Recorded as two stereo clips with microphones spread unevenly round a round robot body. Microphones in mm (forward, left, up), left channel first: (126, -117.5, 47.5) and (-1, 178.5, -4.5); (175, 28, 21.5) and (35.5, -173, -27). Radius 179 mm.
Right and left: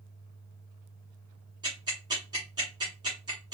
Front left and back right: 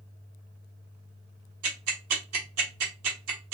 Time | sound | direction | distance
1.6 | ticking | 165° right | 0.7 m